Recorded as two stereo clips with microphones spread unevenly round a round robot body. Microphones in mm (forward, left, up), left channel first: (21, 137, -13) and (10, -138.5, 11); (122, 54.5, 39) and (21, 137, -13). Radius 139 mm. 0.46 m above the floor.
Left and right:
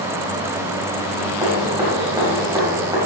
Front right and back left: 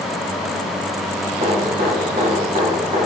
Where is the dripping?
170° right, 3 m.